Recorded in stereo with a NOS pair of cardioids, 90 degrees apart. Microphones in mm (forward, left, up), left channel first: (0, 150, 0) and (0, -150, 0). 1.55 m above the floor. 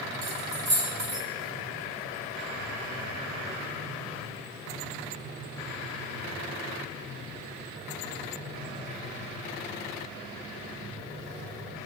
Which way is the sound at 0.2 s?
30° right.